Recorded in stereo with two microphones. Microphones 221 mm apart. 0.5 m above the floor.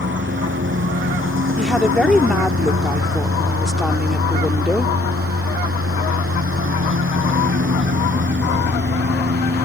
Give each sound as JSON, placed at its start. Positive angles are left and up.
{"t": 0.0, "sound": "a lawn mower", "side_deg": -60}
{"t": 1.6, "sound": "a woman speaking", "side_deg": 0}